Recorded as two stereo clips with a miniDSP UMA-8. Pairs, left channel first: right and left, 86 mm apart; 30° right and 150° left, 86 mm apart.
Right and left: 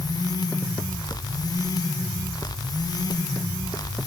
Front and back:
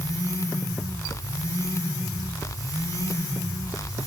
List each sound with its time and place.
Only background noise.